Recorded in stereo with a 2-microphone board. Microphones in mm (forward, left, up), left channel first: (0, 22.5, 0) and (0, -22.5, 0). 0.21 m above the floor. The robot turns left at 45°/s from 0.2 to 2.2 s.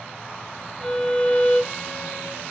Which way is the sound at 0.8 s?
160° left.